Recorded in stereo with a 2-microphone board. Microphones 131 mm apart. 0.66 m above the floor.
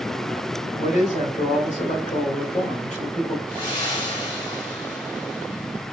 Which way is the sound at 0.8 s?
65° left (ahead or behind).